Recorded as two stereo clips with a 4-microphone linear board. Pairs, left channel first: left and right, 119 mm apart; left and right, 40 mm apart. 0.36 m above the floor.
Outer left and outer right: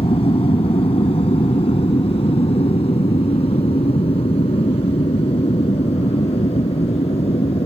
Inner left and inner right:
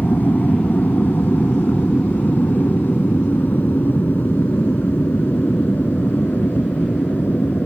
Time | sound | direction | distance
0.0 | an aircraft | 55° left (ahead or behind) | ?